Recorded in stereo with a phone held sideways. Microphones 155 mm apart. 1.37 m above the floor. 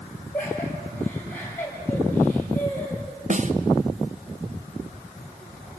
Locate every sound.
0.3 s laughter: 10° left (ahead or behind), 8 m
3.3 s a snare drum: 50° right (ahead or behind), 0.9 m